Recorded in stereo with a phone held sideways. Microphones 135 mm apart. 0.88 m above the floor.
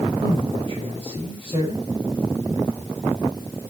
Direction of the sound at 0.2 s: 40° right (ahead or behind).